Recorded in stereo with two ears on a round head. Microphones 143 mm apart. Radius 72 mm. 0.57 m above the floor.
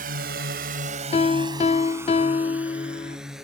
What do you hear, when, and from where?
0.0 s a drone: 60° right (ahead or behind); by 3.4 s centre (ahead or behind)
1.1 s a piano: 40° left (ahead or behind)